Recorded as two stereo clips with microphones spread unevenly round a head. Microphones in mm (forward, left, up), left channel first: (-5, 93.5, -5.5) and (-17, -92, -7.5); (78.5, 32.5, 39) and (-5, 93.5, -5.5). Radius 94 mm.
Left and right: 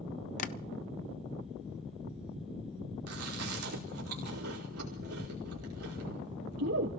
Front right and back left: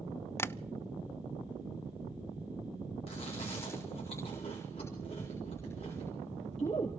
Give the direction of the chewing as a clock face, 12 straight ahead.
3 o'clock.